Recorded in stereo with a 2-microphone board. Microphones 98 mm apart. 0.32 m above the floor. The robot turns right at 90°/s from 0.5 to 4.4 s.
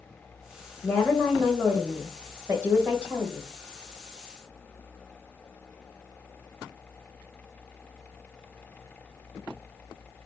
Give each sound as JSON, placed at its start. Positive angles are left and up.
{"t": 0.8, "sound": "a woman speaking", "side_deg": 15, "distance_m": 0.9}